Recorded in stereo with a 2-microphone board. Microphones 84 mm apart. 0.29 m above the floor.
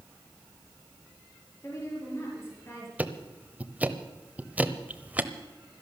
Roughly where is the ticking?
Centre.